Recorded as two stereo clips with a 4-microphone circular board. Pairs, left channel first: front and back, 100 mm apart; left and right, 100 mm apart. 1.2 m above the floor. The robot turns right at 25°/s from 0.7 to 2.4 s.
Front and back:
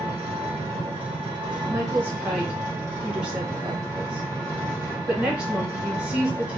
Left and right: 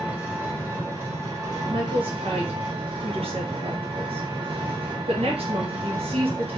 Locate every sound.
0.0 s an engine running: 165° right, 1.7 m; by 6.6 s 120° right, 1.7 m
1.7 s a woman speaking: 120° right, 1.2 m; by 6.6 s 100° right, 1.2 m